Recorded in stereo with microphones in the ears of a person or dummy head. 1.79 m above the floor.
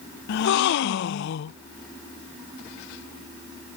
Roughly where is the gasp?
Left.